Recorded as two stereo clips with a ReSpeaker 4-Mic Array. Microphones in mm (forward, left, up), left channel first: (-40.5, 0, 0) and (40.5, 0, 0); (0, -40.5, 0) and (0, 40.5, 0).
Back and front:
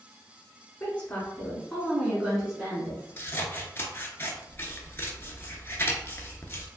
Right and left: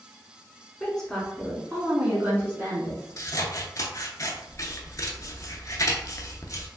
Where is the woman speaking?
150° right, 1.1 m; by 3.2 s 60° left, 1.3 m.